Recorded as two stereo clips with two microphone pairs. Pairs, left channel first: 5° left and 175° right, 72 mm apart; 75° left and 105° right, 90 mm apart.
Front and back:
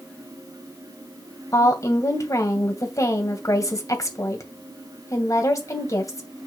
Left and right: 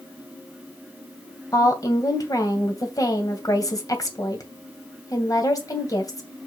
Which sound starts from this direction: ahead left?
A woman speaking, at 1.5 s.